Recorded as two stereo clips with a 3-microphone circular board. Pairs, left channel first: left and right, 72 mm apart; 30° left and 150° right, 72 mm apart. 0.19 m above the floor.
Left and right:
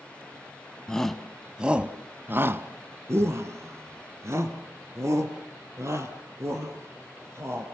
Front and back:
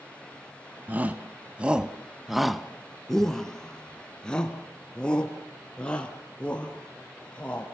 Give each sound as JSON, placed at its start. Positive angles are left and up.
{"t": 0.9, "sound": "a shout", "azimuth_deg": 165, "distance_m": 1.3}